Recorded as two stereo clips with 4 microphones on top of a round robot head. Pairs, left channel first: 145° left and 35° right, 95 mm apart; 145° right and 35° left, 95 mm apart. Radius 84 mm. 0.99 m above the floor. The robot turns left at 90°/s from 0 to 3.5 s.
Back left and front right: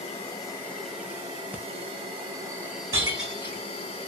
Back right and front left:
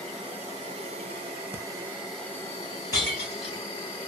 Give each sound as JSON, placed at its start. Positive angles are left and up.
{"t": 0.0, "sound": "an insect", "azimuth_deg": 135, "distance_m": 1.0}
{"t": 1.5, "sound": "breathing", "azimuth_deg": 20, "distance_m": 0.7}
{"t": 2.9, "sound": "breaking glass", "azimuth_deg": -90, "distance_m": 2.0}